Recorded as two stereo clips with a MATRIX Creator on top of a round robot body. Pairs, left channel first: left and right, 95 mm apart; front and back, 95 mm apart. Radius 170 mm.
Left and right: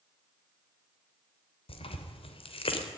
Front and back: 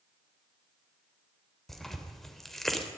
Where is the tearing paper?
85° left, 3.5 m.